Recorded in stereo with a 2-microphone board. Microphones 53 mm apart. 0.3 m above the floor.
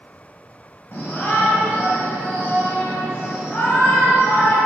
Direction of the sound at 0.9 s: 40° left (ahead or behind).